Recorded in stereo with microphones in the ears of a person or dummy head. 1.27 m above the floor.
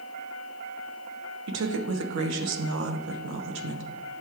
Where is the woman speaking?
80° right, 0.8 m.